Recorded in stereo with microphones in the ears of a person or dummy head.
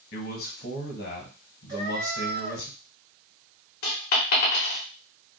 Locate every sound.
0.1 s a man speaking: 55° left (ahead or behind), 1.0 m
1.7 s a cat meowing: 20° right (ahead or behind), 1.0 m
3.8 s a dropped coin: 50° left (ahead or behind), 0.7 m